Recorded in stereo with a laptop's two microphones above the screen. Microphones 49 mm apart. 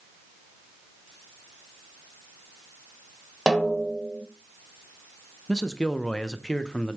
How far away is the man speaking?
About 0.6 m.